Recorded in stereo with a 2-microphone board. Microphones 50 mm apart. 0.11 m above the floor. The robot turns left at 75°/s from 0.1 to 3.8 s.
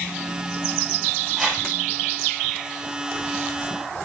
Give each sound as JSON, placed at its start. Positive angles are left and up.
{"t": 1.4, "sound": "a whoosh", "side_deg": 0, "distance_m": 2.5}